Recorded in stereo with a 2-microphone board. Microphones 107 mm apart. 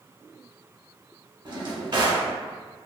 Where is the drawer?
45° right (ahead or behind), 0.7 m.